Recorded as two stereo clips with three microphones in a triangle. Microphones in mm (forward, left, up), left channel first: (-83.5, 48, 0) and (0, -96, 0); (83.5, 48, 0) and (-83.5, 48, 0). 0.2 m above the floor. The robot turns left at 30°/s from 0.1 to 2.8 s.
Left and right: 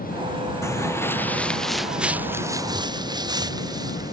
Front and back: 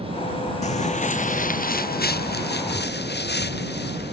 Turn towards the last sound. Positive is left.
turn(degrees=5)